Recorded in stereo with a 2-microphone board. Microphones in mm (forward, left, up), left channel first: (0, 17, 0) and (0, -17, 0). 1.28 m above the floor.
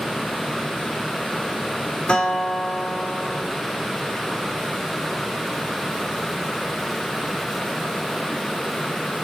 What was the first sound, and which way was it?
A guitar, 25° left (ahead or behind).